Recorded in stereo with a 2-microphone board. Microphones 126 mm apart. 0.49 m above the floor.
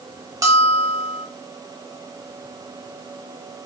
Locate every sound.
0.4 s a bell: 25° right (ahead or behind), 1.1 m